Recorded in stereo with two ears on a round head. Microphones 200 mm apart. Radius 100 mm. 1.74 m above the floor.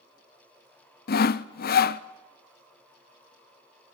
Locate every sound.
1.1 s sawing: 45° left (ahead or behind), 0.6 m